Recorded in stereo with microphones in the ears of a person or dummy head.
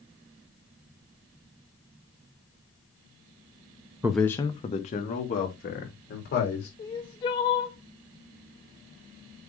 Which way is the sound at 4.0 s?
10° right (ahead or behind).